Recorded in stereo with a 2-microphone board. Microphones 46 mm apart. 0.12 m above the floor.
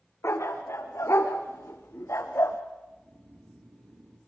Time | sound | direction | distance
0.2 | a dog barking | 80° left | 4 m
2.9 | snoring | 80° right | 5 m